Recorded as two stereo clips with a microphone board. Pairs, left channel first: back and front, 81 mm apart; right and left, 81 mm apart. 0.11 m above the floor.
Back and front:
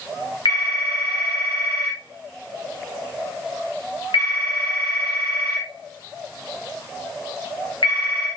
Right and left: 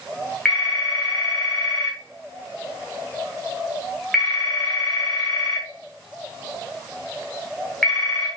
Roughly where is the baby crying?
No baby crying in this recording.